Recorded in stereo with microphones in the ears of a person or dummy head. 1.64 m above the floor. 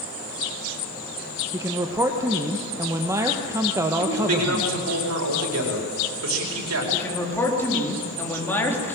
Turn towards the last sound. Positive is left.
turn(degrees=10)  # may be behind; listen again after turning